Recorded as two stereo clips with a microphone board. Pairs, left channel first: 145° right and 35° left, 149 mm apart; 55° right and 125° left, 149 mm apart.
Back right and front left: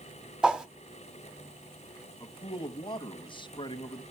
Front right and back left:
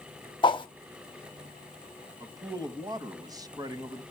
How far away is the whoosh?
About 1.0 m.